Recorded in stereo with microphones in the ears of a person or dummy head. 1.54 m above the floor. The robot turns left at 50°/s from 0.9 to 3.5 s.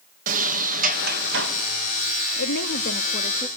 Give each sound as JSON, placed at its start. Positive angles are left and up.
{"t": 0.3, "sound": "a sliding door", "azimuth_deg": -55, "distance_m": 1.7}
{"t": 2.4, "sound": "a woman speaking", "azimuth_deg": 80, "distance_m": 0.6}